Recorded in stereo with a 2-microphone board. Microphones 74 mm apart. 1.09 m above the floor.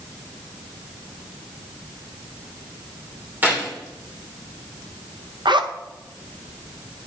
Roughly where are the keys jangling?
Right.